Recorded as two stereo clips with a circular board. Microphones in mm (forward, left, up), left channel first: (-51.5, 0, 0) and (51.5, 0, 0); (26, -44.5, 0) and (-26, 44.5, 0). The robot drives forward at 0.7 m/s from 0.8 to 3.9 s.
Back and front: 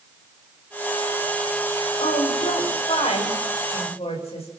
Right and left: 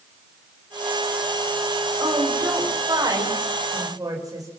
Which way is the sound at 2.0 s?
175° left.